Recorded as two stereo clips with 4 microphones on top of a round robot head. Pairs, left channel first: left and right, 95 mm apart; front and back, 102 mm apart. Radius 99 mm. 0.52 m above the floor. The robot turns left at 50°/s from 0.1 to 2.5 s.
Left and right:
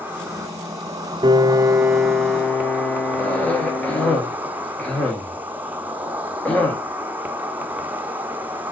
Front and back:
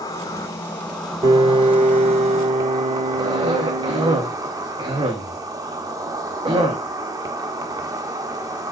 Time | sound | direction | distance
0.0 | an insect | 30° right | 1.2 m
1.2 | a piano | 130° right | 0.7 m
3.2 | a cough | 165° left | 1.8 m